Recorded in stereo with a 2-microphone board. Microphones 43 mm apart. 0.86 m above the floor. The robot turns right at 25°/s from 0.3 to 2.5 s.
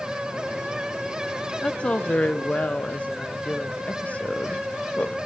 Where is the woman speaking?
25° left (ahead or behind), 0.5 m; by 5.2 s 35° left (ahead or behind), 0.5 m.